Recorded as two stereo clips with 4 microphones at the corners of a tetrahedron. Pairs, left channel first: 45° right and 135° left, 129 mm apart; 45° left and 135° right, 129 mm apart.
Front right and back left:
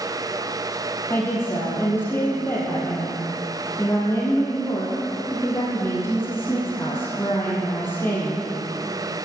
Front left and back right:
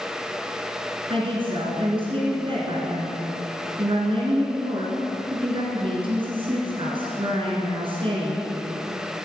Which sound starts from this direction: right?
A woman speaking, at 1.1 s.